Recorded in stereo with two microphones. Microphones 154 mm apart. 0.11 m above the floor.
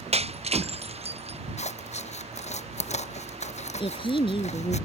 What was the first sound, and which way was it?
Breaking glass, 40° right (ahead or behind).